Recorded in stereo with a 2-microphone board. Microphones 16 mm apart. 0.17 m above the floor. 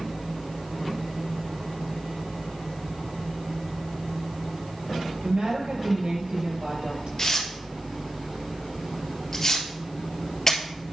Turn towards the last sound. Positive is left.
turn(degrees=25)  # may be behind; listen again after turning